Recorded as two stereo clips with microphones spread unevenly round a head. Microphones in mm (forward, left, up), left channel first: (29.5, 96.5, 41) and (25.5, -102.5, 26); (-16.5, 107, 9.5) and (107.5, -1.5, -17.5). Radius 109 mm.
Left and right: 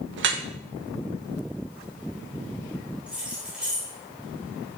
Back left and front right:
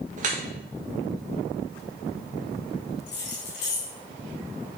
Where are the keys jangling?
Straight behind, 2.5 m.